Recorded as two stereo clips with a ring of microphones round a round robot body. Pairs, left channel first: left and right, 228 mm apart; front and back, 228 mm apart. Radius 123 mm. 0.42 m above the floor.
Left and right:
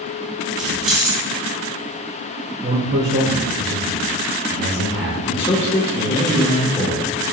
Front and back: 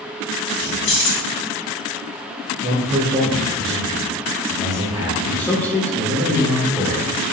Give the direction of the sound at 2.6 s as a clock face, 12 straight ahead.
4 o'clock.